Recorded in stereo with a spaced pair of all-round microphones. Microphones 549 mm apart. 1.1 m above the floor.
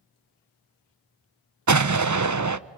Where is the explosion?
35° right (ahead or behind), 0.6 m.